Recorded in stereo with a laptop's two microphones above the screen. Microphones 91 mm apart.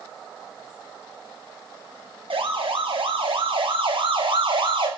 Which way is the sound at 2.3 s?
80° right.